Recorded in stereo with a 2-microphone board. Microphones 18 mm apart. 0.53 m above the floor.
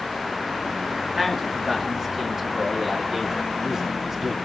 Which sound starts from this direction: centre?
A man speaking, at 1.1 s.